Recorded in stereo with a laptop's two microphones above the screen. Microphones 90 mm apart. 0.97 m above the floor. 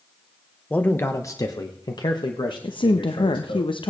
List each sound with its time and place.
0.7 s a man speaking: 15° left (ahead or behind), 0.8 m; by 3.6 s 65° left (ahead or behind), 2 m
2.6 s a woman speaking: 65° left (ahead or behind), 0.7 m